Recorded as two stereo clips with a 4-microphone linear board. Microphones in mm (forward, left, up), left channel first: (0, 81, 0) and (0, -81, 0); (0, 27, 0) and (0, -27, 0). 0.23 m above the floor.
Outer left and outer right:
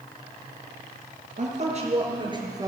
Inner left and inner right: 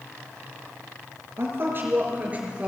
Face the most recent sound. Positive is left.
turn(degrees=-20)  # may be behind; listen again after turning